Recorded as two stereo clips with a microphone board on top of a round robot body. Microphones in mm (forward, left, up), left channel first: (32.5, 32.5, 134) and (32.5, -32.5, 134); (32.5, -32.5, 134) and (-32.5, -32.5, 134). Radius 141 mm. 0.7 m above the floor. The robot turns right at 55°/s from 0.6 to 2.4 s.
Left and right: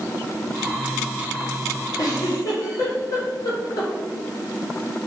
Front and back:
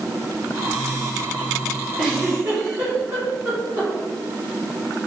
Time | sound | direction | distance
2.0 | a giggle | 100° left | 2.5 m